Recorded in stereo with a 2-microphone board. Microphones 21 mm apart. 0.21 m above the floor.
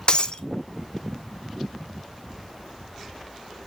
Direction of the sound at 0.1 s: 55° left (ahead or behind).